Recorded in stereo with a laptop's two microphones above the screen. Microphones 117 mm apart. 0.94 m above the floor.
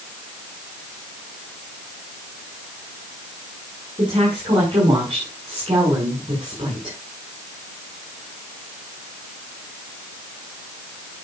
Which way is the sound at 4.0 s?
45° right (ahead or behind).